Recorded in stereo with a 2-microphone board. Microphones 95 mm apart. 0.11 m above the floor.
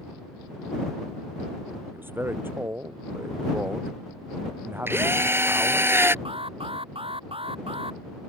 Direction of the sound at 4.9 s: 25° right (ahead or behind).